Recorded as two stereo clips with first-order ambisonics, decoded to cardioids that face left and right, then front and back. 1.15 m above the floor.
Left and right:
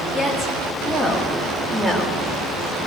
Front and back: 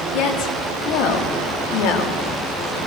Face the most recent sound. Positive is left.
turn(degrees=-5)